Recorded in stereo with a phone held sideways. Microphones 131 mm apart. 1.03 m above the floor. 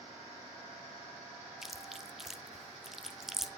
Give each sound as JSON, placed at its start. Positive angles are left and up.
{"t": 1.6, "sound": "chewing", "side_deg": 0, "distance_m": 0.7}